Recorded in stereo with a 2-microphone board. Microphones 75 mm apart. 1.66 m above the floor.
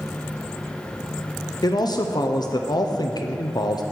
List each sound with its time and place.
1.6 s a man speaking: 60° left (ahead or behind), 0.6 m